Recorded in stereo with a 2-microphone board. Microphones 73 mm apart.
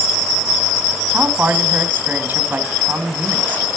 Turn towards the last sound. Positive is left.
turn(degrees=-25)  # may be behind; listen again after turning